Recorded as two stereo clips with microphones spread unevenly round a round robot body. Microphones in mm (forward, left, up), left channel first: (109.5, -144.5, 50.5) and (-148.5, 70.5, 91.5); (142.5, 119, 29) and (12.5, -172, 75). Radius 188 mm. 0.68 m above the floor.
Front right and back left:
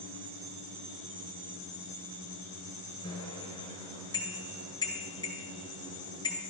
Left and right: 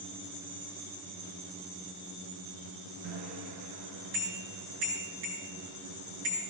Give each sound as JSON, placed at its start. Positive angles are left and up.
{"t": 3.0, "sound": "a bicycle bell", "azimuth_deg": -115, "distance_m": 8.0}